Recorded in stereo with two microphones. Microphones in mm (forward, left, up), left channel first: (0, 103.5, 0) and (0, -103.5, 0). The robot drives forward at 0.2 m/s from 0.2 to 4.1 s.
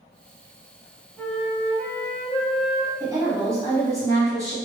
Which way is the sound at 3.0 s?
15° right (ahead or behind).